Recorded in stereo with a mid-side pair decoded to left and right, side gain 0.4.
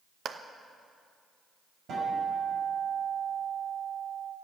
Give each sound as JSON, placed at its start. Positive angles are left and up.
{"t": 0.2, "sound": "a clap", "azimuth_deg": -60, "distance_m": 0.9}
{"t": 1.9, "sound": "a guitar", "azimuth_deg": -70, "distance_m": 5.5}